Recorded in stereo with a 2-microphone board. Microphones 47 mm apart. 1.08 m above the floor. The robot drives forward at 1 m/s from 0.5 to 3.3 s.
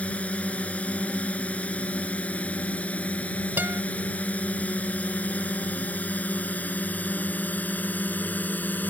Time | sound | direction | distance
0.0 | a drone | 25° left (ahead or behind) | ?
3.6 | a guitar | 45° right (ahead or behind) | ?